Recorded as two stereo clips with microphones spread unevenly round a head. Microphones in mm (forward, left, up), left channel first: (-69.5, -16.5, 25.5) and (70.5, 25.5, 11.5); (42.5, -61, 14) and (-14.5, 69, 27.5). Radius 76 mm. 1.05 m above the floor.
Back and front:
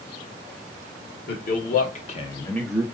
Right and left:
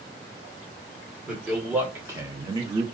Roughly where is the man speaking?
Behind right.